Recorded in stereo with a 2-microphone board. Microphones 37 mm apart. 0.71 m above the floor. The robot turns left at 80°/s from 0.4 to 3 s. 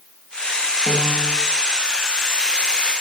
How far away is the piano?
About 1.9 m.